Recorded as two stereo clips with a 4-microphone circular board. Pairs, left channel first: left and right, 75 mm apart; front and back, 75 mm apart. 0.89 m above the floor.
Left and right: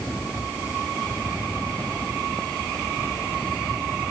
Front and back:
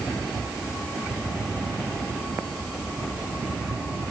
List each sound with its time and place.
Only background noise.